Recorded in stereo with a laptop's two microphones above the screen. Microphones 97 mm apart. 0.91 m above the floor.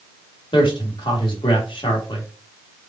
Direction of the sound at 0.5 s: 55° left (ahead or behind).